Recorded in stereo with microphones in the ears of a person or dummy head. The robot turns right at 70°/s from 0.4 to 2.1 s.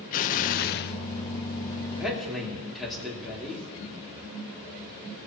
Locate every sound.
0.1 s an explosion: 65° left, 0.5 m; by 1.0 s 105° left, 0.5 m
1.9 s a man speaking: 10° right (ahead or behind), 2.5 m; by 3.7 s centre (ahead or behind), 2.5 m